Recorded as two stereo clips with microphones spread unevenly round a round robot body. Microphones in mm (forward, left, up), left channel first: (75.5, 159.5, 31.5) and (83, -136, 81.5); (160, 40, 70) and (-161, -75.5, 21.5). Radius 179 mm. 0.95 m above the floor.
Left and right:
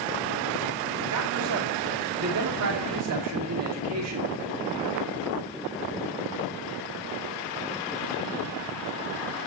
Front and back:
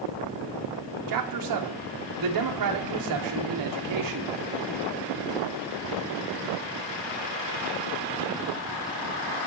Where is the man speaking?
135° right, 2.5 m.